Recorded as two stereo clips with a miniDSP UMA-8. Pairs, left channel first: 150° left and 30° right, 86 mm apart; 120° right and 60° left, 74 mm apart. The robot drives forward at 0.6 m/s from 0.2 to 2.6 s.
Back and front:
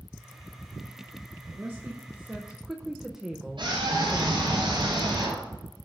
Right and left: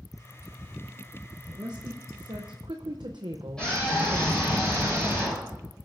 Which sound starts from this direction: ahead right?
A scream, at 3.6 s.